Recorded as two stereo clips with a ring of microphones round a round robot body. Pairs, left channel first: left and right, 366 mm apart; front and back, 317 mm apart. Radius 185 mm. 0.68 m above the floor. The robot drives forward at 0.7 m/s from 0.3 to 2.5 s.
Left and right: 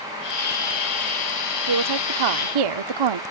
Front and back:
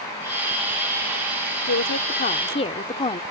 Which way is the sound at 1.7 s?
55° right.